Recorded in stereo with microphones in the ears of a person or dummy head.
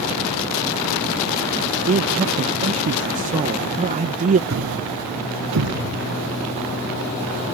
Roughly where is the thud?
Right.